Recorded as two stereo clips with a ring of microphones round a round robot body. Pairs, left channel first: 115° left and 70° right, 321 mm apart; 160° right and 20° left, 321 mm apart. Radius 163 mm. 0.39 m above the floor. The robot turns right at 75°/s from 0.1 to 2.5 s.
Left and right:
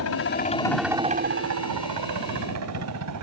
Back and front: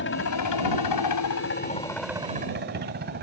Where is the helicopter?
150° left; by 3.2 s 35° right.